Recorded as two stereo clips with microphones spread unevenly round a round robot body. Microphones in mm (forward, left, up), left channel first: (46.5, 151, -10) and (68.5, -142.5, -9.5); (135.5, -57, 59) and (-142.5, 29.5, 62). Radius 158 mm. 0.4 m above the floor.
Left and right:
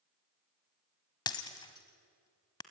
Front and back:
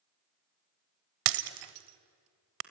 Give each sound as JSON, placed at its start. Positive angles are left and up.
{"t": 1.3, "sound": "breaking glass", "azimuth_deg": 170, "distance_m": 1.0}